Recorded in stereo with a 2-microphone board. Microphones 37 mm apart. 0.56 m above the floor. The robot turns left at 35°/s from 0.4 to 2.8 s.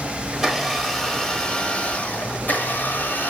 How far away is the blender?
About 0.9 m.